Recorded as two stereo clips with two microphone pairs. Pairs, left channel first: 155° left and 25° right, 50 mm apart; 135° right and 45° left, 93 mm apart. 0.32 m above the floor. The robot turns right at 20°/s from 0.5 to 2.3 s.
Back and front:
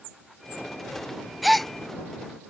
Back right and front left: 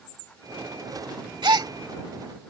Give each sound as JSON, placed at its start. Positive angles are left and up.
{"t": 1.4, "sound": "a gasp", "azimuth_deg": 65}